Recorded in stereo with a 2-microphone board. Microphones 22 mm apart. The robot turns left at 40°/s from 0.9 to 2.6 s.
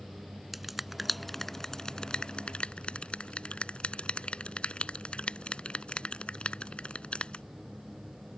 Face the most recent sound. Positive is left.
turn(degrees=60)  # may be behind; listen again after turning